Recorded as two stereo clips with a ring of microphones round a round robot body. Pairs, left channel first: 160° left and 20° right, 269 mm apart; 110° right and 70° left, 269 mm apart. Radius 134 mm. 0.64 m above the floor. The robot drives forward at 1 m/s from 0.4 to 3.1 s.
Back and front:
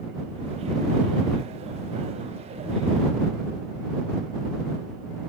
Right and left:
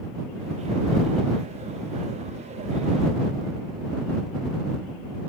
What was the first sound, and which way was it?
Only background noise.